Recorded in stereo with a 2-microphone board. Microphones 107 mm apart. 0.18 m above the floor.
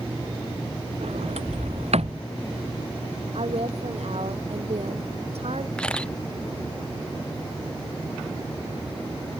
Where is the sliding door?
85° right.